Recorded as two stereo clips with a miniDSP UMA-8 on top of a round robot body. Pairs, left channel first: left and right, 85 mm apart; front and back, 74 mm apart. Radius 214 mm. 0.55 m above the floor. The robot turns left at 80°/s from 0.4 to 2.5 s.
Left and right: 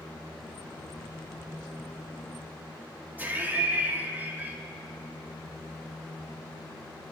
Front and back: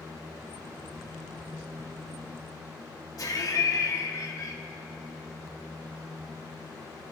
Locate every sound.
3.2 s laughter: 25° right, 1.5 m